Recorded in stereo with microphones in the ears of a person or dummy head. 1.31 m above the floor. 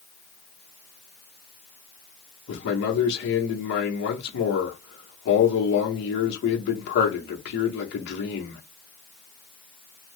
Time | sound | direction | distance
2.5 | a man speaking | 65° left (ahead or behind) | 1.0 m